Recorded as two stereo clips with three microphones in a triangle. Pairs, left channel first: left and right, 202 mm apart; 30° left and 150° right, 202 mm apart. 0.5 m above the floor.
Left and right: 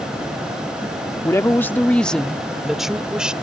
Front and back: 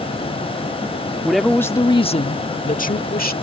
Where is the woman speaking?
135° left; by 3.3 s 5° right.